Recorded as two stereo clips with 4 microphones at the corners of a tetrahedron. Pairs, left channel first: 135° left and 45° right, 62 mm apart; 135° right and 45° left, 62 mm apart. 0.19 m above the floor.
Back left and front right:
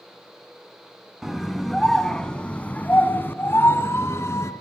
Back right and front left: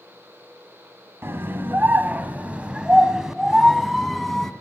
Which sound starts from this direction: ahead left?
A scream, at 1.2 s.